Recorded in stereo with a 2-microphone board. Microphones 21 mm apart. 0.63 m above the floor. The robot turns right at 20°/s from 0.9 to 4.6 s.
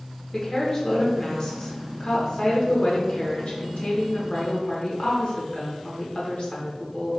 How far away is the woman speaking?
About 1.6 m.